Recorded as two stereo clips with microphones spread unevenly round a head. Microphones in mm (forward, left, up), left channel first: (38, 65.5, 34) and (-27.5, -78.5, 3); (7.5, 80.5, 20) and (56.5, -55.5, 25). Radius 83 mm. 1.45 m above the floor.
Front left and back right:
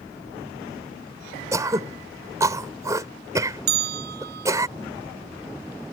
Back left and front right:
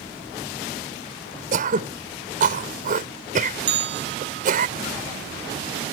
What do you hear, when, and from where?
1.5 s throat clearing: 40° right
3.7 s a bell: 85° right